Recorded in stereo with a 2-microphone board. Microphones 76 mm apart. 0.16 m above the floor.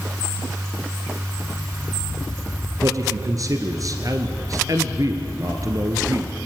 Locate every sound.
2.8 s a man speaking: 50° right (ahead or behind), 2 m